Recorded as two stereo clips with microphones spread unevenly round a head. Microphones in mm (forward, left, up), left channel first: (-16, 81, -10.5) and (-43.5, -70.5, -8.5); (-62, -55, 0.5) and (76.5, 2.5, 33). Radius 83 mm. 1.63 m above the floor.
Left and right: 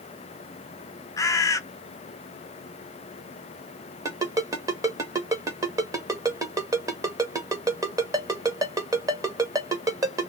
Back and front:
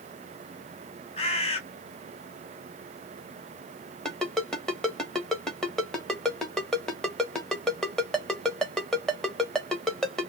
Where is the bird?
150° left, 0.5 m.